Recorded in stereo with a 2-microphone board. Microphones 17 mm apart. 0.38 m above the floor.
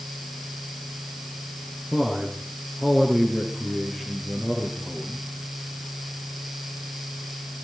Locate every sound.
1.9 s a man speaking: 25° right (ahead or behind), 5 m; by 5.2 s 40° right (ahead or behind), 7.5 m